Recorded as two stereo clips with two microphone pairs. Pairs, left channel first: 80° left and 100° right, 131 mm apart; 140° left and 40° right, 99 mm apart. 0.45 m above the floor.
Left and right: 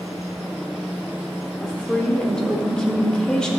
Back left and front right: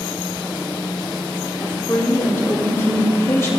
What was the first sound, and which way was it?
A woman speaking, 155° left.